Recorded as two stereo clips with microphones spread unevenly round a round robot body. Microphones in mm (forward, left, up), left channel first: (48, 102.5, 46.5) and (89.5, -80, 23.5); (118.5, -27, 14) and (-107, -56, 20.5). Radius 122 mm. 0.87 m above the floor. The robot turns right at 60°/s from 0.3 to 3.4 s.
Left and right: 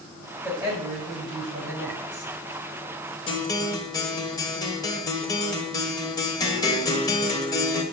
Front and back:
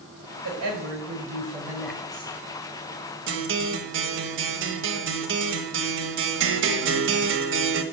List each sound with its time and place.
0.4 s a woman speaking: 170° right, 5.5 m; by 2.4 s 50° right, 5.5 m
3.3 s a guitar: 170° left, 1.3 m; by 7.8 s 175° left, 1.3 m